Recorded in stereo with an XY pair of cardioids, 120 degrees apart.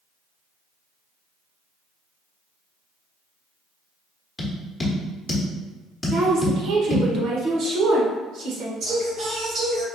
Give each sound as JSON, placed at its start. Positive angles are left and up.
{"t": 4.4, "sound": "tapping", "azimuth_deg": 10, "distance_m": 1.2}
{"t": 6.1, "sound": "a woman speaking", "azimuth_deg": -65, "distance_m": 1.2}
{"t": 8.8, "sound": "singing", "azimuth_deg": -60, "distance_m": 2.0}